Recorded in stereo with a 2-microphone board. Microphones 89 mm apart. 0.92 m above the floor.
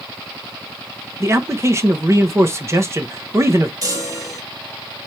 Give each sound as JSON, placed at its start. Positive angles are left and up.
{"t": 1.2, "sound": "a man speaking", "side_deg": -30, "distance_m": 0.7}
{"t": 3.8, "sound": "a chime", "side_deg": -40, "distance_m": 1.2}